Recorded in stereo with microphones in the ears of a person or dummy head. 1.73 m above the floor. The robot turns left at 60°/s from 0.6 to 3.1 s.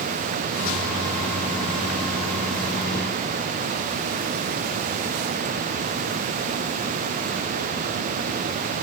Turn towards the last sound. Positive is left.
No sound to turn to.